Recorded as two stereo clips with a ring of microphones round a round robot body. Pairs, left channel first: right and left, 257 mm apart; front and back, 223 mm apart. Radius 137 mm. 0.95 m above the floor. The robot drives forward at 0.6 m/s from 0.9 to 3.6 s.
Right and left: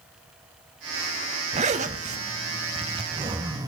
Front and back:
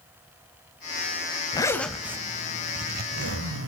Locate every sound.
1.5 s a zipper: 50° left, 0.8 m; by 3.7 s 165° left, 1.3 m